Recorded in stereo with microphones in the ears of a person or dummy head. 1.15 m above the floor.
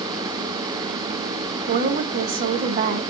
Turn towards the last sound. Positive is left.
turn(degrees=-45)  # may be behind; listen again after turning